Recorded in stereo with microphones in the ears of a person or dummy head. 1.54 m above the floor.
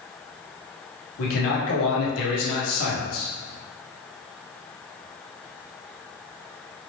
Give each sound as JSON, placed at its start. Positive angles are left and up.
{"t": 1.2, "sound": "a man speaking", "side_deg": 80, "distance_m": 1.3}